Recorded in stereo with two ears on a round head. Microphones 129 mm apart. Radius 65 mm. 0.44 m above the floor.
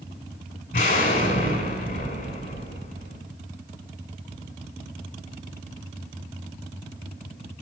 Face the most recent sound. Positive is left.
turn(degrees=60)  # may be behind; listen again after turning